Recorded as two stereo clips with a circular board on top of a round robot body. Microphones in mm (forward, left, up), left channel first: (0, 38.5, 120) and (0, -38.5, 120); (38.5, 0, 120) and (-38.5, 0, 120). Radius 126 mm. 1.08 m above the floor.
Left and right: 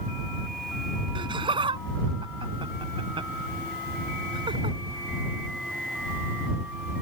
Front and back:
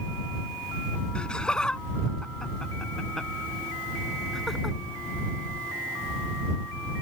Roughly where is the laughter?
Right.